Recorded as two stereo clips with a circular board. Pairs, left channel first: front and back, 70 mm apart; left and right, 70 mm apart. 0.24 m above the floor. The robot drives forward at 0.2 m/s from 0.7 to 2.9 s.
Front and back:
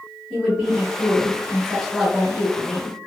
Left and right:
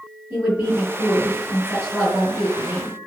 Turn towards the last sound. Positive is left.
turn(degrees=-125)